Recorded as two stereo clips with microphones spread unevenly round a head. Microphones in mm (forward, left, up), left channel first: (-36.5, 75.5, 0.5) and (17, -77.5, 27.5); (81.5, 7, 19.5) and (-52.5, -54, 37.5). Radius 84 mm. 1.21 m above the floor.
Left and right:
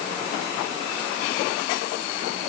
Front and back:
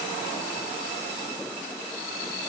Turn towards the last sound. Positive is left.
No sound to turn to.